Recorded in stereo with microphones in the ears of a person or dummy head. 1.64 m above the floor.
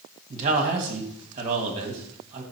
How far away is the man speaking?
About 1.5 m.